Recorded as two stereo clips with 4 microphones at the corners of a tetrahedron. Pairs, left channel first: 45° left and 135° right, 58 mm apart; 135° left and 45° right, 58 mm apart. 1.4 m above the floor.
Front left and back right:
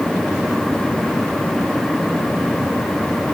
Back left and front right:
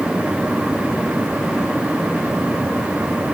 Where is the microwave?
I don't hear a microwave.